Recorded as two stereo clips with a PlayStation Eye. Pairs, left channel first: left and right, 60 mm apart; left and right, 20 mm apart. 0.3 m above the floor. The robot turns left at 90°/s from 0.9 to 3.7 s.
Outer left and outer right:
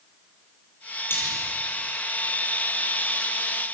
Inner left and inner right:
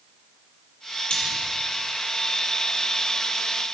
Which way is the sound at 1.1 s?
40° left (ahead or behind).